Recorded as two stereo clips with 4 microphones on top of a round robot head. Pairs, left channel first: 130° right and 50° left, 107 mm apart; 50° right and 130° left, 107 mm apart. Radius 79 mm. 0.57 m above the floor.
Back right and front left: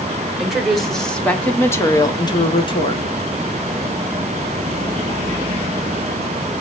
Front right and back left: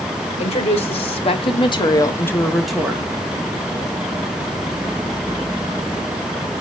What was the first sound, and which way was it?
A woman speaking, 35° right.